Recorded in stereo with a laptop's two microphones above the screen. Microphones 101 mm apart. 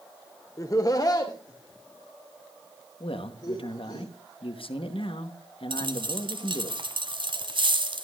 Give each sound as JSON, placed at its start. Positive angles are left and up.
{"t": 0.6, "sound": "laughter", "side_deg": 30, "distance_m": 0.6}
{"t": 3.0, "sound": "a man speaking", "side_deg": 60, "distance_m": 1.1}
{"t": 5.7, "sound": "a dropped coin", "side_deg": -50, "distance_m": 1.2}